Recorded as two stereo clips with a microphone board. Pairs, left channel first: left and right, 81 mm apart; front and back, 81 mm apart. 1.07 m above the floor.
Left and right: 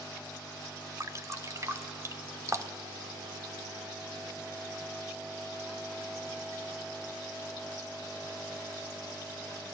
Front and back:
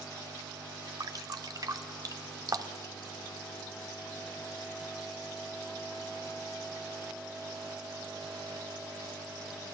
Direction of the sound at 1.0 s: 140° right.